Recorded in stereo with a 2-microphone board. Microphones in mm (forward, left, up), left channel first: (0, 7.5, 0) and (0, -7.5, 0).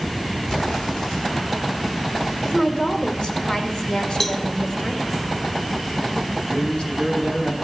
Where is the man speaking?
65° left (ahead or behind), 3.5 m.